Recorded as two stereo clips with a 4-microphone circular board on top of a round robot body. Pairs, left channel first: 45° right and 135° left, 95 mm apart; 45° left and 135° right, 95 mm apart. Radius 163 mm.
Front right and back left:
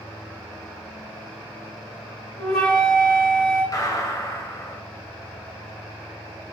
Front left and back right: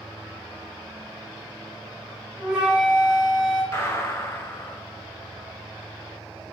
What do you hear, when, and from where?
2.4 s a flute: 55° right, 1.0 m
3.7 s a gunshot: 10° right, 0.9 m